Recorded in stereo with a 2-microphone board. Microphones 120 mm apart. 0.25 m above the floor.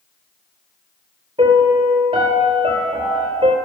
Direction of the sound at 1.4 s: 45° right (ahead or behind).